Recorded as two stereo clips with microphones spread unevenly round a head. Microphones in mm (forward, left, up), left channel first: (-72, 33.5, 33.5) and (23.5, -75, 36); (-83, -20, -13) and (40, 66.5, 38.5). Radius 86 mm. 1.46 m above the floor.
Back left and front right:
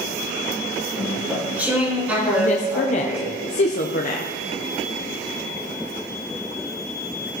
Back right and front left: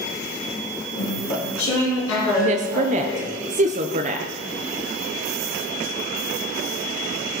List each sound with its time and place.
0.9 s chewing: 130° right, 4 m
2.4 s a woman speaking: 80° left, 0.6 m